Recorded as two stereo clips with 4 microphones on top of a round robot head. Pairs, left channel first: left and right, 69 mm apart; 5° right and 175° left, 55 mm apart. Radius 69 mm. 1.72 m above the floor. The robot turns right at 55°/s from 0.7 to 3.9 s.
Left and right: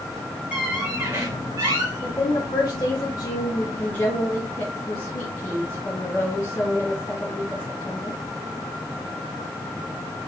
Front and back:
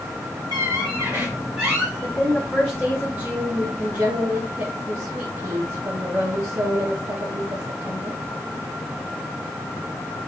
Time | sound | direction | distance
0.5 | a squeak | 160° right | 2 m
2.0 | a woman speaking | 55° left | 1.7 m